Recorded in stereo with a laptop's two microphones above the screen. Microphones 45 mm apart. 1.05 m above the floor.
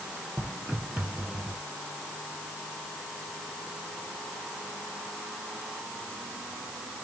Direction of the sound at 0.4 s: 45° right (ahead or behind).